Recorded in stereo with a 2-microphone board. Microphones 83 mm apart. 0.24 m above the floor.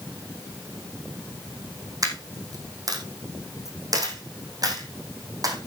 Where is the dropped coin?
45° right (ahead or behind), 3 m.